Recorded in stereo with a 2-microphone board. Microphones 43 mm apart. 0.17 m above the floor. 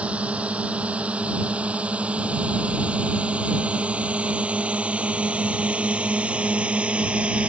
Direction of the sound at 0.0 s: 30° right (ahead or behind).